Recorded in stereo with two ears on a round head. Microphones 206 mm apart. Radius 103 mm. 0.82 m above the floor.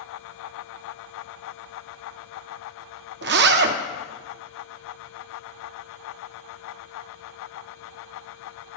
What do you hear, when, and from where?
3.2 s a zipper: 50° right (ahead or behind), 0.5 m